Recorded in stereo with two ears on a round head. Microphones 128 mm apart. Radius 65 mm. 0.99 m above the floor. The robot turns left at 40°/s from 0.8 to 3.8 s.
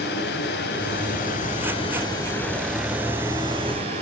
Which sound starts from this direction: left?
Running water, at 0.0 s.